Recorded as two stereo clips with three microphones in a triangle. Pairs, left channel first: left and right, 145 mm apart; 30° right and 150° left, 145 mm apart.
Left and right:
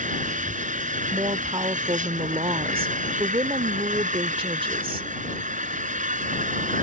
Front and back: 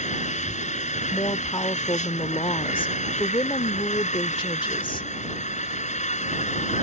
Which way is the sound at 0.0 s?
65° right.